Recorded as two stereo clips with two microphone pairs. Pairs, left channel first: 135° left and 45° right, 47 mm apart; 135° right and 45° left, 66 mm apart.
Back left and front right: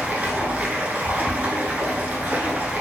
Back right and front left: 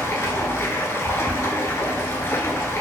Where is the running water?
90° right, 0.7 m.